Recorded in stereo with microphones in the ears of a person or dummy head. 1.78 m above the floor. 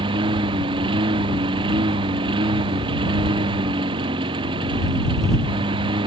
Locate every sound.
0.0 s a lawn mower: 30° right (ahead or behind)